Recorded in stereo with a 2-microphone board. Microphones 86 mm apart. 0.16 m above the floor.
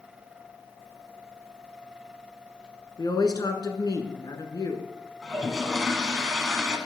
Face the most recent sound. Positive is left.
turn(degrees=-5)  # may be behind; listen again after turning